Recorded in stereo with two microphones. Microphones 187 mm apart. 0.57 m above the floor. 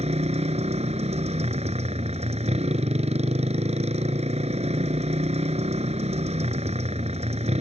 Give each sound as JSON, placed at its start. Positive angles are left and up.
{"t": 0.0, "sound": "a motorcycle", "side_deg": -40}